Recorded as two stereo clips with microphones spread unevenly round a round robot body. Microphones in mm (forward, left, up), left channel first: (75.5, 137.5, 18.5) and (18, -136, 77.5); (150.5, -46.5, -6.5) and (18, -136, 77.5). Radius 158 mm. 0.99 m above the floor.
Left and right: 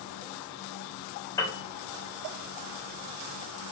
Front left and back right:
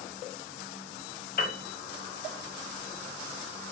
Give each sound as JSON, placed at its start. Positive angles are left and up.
{"t": 1.4, "sound": "a piano", "azimuth_deg": 0, "distance_m": 1.2}